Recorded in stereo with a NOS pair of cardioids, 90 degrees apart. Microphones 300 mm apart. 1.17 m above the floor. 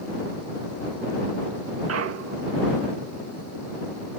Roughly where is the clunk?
Ahead right.